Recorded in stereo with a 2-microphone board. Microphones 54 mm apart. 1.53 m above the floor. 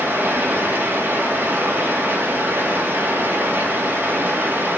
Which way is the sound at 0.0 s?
45° right (ahead or behind).